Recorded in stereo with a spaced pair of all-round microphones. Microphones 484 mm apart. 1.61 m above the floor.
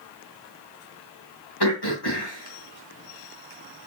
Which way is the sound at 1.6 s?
50° left (ahead or behind).